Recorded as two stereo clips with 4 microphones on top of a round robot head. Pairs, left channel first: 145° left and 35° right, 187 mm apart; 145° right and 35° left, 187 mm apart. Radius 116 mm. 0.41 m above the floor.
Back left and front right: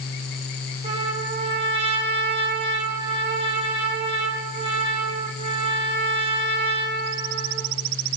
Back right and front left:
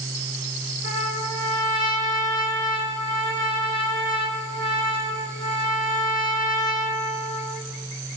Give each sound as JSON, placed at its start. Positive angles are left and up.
{"t": 0.8, "sound": "a trumpet", "azimuth_deg": 25, "distance_m": 4.0}